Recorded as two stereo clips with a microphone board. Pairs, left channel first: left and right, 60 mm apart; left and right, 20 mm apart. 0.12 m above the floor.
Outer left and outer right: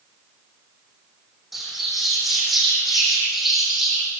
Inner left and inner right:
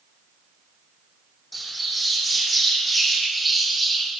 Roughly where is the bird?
Centre.